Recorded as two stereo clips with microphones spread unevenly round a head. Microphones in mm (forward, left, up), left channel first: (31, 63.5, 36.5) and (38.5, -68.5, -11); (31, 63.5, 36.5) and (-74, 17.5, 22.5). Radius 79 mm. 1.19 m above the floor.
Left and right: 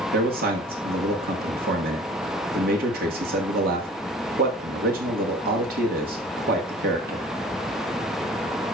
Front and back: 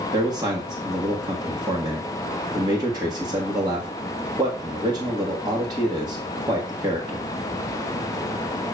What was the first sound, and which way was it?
A man speaking, 90° right.